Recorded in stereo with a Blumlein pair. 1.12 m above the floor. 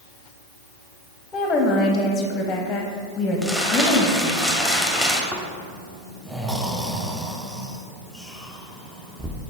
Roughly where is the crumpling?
Ahead.